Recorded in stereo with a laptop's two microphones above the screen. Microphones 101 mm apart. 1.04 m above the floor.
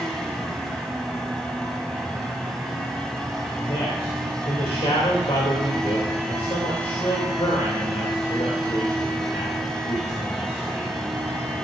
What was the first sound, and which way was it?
A fan, 5° left (ahead or behind).